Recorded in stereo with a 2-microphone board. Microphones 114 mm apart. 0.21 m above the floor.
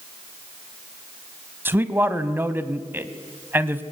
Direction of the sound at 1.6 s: 20° right (ahead or behind).